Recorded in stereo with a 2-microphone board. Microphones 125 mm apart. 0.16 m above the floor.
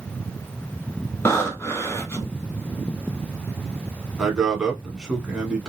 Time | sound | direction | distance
1.2 | breathing | 20° left (ahead or behind) | 0.7 m
4.2 | a man speaking | 5° right (ahead or behind) | 1.1 m